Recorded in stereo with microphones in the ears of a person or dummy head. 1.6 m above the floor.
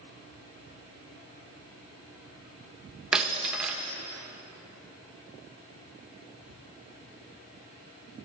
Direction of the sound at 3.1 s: 5° right (ahead or behind).